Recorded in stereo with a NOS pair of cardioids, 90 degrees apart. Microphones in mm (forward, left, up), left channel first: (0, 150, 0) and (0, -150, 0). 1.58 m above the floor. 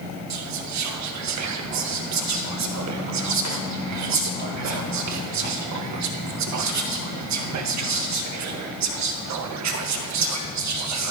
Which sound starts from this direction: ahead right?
Whispering, at 0.3 s.